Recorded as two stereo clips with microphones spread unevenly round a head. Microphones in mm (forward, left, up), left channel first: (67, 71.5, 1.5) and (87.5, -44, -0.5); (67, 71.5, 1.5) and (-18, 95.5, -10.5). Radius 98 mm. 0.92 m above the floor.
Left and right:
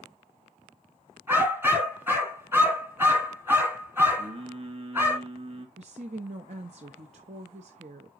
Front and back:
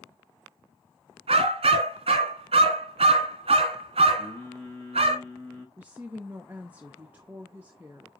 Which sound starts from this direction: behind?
A dog barking, at 1.3 s.